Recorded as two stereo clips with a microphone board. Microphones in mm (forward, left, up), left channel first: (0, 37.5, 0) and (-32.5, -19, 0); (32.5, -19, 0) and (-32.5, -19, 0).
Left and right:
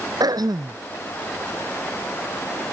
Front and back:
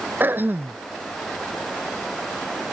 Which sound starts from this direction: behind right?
Throat clearing, at 0.2 s.